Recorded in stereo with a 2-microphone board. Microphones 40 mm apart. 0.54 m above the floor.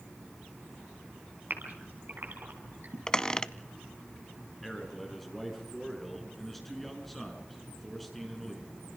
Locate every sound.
1.5 s a gasp: 60° right (ahead or behind), 4 m
3.1 s a squeak: 15° left (ahead or behind), 0.6 m
4.6 s a man speaking: 5° left (ahead or behind), 5.5 m